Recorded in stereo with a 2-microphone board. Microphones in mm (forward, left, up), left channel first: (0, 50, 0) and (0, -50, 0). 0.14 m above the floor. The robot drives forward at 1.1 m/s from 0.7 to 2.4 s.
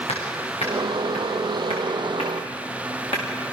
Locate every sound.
0.1 s hammering: 85° left, 7.5 m; by 3.2 s 75° left (ahead or behind), 8 m